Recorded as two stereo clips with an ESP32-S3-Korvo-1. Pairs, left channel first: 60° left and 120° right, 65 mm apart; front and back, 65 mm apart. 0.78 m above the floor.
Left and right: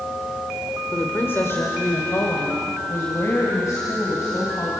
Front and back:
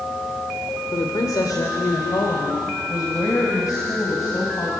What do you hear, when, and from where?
0.9 s a woman speaking: straight ahead, 2 m; by 4.7 s 25° left, 4.5 m